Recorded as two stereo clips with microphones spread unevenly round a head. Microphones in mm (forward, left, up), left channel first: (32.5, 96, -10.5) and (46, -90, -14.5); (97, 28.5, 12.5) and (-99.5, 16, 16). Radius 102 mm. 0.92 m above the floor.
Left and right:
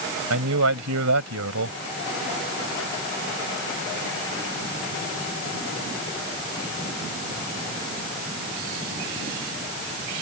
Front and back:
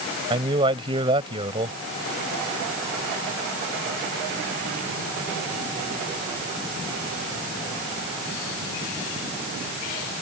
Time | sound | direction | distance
0.3 | a man speaking | 110° right | ?